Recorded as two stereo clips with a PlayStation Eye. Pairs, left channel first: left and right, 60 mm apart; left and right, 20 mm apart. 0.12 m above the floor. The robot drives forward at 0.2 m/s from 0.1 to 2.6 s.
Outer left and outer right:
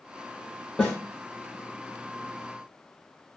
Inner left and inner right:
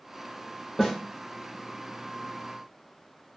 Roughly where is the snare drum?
Centre.